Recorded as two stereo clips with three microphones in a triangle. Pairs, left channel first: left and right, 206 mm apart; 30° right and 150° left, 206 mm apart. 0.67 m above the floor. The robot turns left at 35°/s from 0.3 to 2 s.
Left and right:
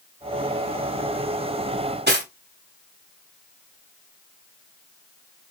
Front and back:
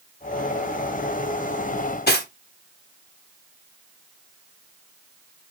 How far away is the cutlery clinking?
About 0.7 m.